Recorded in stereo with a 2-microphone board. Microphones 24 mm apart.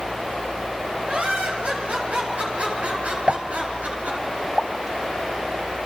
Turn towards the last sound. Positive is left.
turn(degrees=-45)  # may be behind; listen again after turning